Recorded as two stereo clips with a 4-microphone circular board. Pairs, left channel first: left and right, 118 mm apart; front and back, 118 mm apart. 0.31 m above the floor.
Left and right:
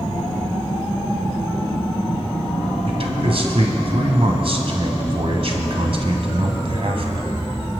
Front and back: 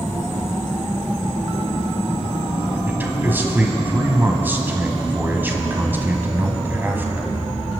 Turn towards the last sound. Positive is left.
turn(degrees=-110)